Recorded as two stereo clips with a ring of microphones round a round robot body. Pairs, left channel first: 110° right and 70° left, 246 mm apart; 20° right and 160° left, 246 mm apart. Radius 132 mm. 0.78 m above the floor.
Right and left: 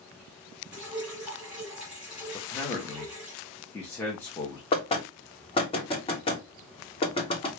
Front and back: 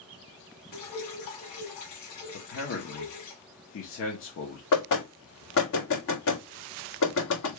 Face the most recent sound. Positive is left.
turn(degrees=-45)